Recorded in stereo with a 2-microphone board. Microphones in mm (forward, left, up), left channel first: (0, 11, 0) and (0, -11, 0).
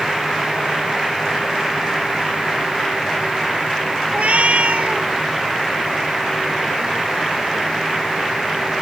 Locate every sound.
4.1 s a cat meowing: 85° right